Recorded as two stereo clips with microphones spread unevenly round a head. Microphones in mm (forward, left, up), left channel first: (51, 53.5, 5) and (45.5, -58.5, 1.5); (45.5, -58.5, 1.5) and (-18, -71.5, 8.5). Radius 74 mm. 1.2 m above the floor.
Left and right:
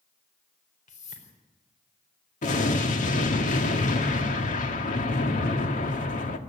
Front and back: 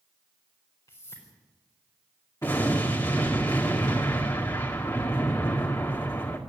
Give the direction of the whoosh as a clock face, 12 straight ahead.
9 o'clock.